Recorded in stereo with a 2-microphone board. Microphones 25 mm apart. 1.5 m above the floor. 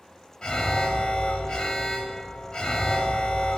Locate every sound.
0.4 s an alarm: 30° left (ahead or behind), 1.2 m